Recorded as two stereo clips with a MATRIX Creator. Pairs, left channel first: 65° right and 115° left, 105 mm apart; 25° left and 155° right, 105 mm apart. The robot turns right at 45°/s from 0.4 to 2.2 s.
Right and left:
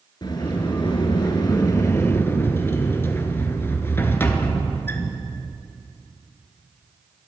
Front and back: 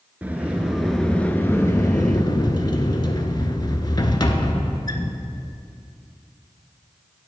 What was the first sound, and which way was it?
A sliding door, 90° right.